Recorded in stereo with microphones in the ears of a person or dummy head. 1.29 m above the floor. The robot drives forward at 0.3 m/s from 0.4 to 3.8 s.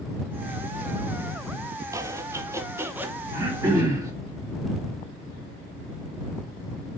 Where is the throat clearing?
15° right (ahead or behind), 2.5 m.